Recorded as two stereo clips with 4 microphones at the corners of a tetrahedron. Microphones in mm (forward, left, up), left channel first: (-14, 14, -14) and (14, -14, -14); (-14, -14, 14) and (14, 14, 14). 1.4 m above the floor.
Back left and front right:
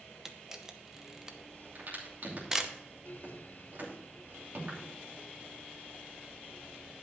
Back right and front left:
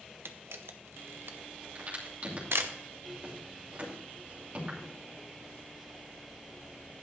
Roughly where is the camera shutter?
Ahead left.